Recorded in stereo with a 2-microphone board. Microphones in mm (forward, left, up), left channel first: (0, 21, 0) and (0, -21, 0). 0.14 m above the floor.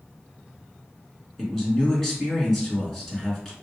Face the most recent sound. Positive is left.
turn(degrees=5)  # may be behind; listen again after turning